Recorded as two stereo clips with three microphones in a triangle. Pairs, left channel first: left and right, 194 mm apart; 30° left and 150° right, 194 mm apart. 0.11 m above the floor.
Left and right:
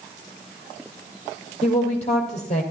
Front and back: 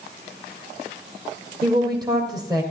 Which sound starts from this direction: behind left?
A woman speaking, at 1.6 s.